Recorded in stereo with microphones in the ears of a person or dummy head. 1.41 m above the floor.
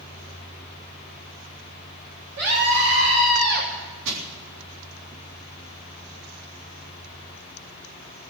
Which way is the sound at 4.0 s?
70° right (ahead or behind).